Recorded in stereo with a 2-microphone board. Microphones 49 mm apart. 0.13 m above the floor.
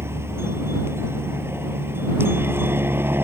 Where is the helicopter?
60° right (ahead or behind); by 3.2 s 50° right (ahead or behind).